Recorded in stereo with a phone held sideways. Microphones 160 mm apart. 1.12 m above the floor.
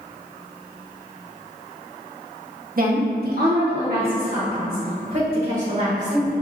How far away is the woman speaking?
About 0.7 m.